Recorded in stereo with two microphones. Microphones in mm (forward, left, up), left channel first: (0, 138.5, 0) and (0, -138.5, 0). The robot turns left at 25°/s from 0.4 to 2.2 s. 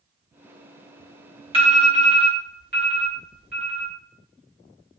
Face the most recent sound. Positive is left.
turn(degrees=35)  # may be behind; listen again after turning